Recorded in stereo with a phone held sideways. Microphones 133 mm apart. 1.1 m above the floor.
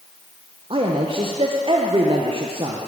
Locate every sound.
0.7 s a man speaking: 40° right (ahead or behind), 0.6 m